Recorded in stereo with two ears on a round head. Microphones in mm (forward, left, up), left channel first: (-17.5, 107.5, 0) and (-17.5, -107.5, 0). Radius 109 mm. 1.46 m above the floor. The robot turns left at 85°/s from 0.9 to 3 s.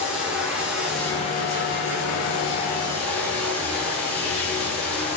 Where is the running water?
175° right, 8 m; by 5.2 s 5° left, 8 m.